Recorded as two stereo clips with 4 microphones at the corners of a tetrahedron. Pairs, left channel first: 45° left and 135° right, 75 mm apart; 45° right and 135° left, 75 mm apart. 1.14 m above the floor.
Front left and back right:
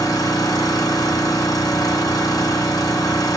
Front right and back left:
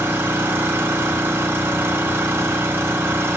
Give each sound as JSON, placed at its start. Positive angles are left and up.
{"t": 0.0, "sound": "an engine running", "azimuth_deg": 75, "distance_m": 1.5}